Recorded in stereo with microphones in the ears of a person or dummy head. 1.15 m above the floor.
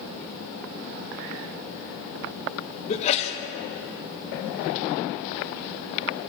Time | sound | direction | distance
2.9 | a sneeze | 40° left (ahead or behind) | 1.2 m